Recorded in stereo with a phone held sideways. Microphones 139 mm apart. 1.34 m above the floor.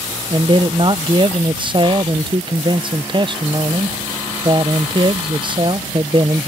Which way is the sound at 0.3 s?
35° right (ahead or behind).